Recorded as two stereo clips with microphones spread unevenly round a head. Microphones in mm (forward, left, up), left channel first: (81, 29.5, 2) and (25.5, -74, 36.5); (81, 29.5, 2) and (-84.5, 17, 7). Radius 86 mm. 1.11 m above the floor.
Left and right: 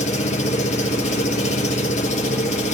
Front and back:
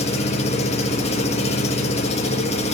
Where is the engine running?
55° left, 1.4 m.